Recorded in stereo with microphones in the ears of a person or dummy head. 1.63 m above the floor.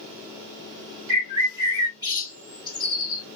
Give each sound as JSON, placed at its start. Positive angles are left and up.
{"t": 1.1, "sound": "a bird", "side_deg": -20, "distance_m": 2.5}